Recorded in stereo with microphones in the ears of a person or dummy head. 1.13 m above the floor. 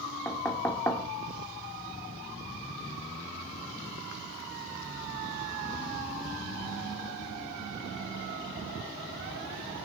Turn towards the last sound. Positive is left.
turn(degrees=10)  # may be behind; listen again after turning